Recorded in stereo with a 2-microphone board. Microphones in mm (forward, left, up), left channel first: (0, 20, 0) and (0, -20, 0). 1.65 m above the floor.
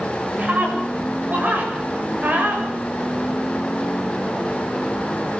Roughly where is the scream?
Right.